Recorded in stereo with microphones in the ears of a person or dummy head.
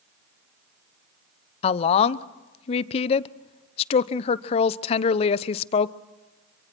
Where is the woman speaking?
40° left (ahead or behind), 0.8 m.